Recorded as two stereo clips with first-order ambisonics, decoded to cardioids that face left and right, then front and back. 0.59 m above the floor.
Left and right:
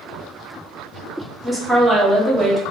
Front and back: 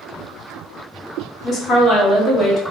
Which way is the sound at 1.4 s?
5° right.